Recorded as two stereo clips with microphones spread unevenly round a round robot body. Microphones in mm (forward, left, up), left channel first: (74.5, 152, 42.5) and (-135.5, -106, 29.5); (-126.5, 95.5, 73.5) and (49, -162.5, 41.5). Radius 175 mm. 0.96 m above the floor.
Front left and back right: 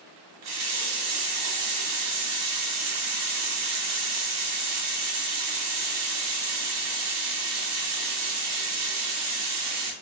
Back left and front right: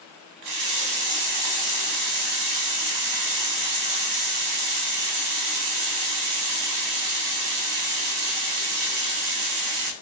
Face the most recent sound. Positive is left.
turn(degrees=-80)